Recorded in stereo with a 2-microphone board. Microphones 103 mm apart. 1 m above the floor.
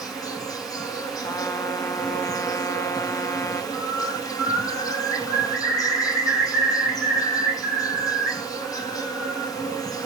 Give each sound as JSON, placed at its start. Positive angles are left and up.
{"t": 0.0, "sound": "an insect", "side_deg": 35, "distance_m": 0.9}
{"t": 1.2, "sound": "a trumpet", "side_deg": 30, "distance_m": 0.5}
{"t": 3.7, "sound": "a bird", "side_deg": 25, "distance_m": 4.5}